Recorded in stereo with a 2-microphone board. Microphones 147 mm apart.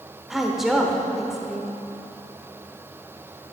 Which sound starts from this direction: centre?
A woman speaking, at 0.3 s.